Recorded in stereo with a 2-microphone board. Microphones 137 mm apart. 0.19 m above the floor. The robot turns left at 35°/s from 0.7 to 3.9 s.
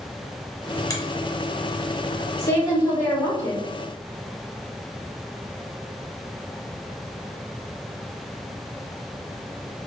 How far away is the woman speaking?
About 1.1 m.